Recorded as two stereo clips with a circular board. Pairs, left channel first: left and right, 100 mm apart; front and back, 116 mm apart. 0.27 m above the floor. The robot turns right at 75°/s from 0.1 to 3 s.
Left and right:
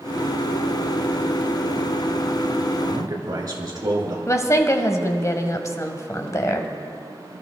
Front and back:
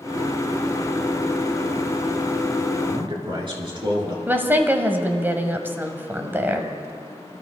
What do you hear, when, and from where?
2.9 s a man speaking: 150° right, 3.5 m; by 4.2 s 140° right, 3.5 m
4.3 s a woman speaking: 120° left, 1.2 m